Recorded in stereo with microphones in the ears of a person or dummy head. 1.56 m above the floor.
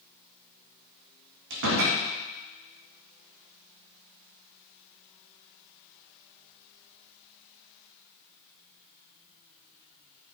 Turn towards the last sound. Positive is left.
turn(degrees=-60)  # may be behind; listen again after turning